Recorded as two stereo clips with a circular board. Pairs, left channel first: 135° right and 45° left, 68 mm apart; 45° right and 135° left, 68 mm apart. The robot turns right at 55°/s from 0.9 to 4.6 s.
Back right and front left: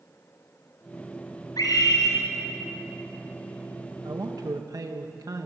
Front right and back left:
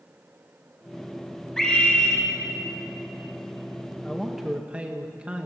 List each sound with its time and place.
1.6 s a scream: 125° right, 7.5 m; by 2.2 s 85° right, 7.5 m
4.0 s a man speaking: 35° left, 1.6 m; by 5.5 s 65° left, 1.6 m